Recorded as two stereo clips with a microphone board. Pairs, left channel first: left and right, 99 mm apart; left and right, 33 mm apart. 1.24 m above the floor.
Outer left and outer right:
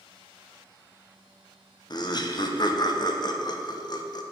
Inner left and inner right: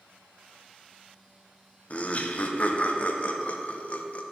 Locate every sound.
1.9 s laughter: 45° left (ahead or behind), 0.6 m